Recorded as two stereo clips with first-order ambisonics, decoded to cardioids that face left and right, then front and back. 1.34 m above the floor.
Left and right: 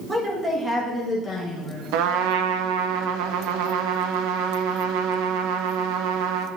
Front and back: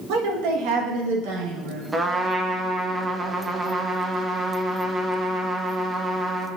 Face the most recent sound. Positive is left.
turn(degrees=-100)